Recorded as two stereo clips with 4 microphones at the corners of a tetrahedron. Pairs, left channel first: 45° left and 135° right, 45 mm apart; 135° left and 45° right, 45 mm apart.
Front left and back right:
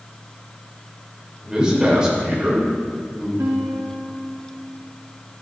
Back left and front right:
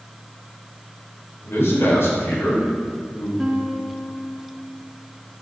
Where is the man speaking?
155° left, 6 m.